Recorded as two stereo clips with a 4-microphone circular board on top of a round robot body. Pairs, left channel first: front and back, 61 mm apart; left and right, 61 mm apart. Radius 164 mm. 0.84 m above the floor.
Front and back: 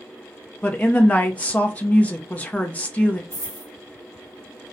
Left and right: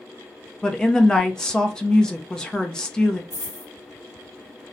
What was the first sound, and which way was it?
A woman speaking, 25° left.